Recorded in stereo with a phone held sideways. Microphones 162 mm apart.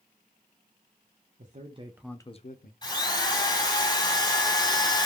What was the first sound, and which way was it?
A man speaking, 50° right (ahead or behind).